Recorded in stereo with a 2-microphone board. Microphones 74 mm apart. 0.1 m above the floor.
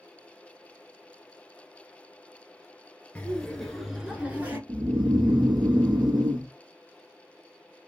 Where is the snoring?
70° right (ahead or behind), 1.0 m.